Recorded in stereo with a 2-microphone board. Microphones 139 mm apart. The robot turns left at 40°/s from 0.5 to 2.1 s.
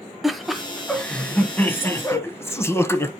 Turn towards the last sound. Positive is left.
turn(degrees=20)  # may be behind; listen again after turning